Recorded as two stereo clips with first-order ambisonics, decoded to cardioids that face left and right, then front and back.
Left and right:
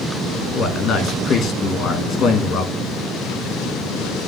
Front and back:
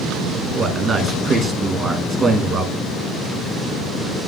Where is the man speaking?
120° left, 1.1 m.